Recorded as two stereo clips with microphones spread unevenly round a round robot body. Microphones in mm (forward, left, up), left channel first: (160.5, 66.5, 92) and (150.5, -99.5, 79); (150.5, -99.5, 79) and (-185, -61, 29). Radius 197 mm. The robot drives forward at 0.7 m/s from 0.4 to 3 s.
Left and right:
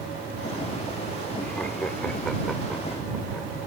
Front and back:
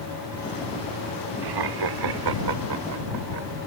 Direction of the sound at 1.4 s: 170° left.